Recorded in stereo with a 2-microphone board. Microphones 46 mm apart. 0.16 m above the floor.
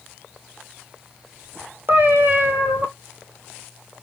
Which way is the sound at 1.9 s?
50° right (ahead or behind).